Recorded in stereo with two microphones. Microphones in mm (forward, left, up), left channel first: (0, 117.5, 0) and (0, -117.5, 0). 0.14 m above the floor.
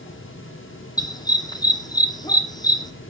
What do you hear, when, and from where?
1.0 s a dog barking: 15° left (ahead or behind), 2 m